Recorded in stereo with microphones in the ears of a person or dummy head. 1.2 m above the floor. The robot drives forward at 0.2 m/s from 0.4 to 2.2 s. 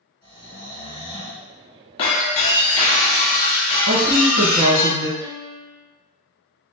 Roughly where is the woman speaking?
Right.